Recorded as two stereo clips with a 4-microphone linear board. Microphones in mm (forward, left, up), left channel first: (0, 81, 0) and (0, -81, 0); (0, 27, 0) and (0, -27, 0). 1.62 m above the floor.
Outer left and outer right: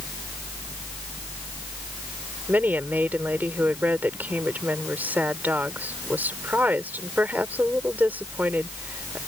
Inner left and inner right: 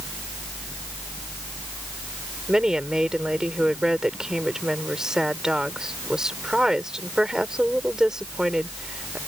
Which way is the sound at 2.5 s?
10° right (ahead or behind).